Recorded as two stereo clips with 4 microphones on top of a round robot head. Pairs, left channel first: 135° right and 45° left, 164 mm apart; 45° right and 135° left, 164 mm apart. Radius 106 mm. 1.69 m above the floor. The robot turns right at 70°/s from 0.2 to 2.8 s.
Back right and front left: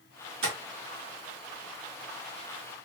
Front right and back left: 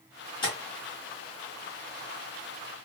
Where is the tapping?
15° left, 1.2 m; by 0.6 s 25° left, 1.2 m.